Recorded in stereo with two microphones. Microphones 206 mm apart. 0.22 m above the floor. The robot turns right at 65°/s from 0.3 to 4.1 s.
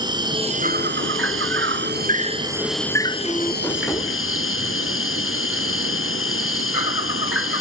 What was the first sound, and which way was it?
An insect, 160° right.